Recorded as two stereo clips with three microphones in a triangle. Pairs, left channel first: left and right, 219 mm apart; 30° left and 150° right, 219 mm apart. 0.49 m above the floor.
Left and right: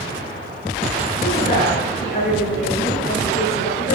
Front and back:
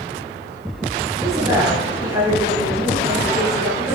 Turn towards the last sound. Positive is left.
turn(degrees=135)